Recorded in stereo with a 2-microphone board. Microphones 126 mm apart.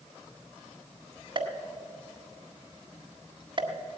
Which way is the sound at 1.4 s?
40° right (ahead or behind).